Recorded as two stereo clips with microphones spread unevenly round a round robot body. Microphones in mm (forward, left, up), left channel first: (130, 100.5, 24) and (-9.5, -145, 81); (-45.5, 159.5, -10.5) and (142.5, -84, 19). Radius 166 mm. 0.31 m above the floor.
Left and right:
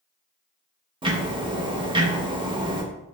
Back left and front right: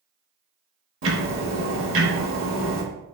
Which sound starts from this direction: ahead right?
Ticking, at 1.0 s.